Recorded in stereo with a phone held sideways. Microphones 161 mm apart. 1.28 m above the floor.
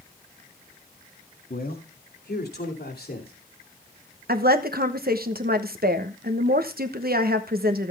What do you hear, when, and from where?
1.5 s a man speaking: 70° left (ahead or behind), 2 m; by 3.3 s 80° left, 3 m
4.3 s a woman speaking: 70° right (ahead or behind), 1.1 m